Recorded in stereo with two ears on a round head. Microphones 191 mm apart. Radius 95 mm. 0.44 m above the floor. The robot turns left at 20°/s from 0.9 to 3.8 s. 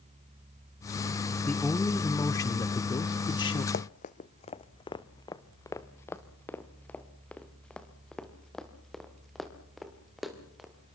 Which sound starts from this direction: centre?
A man speaking, at 1.5 s.